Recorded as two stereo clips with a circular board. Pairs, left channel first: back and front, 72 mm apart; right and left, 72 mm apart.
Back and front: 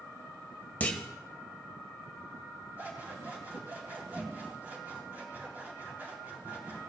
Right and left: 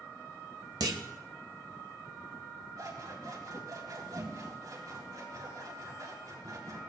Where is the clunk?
115° left, 1.0 m.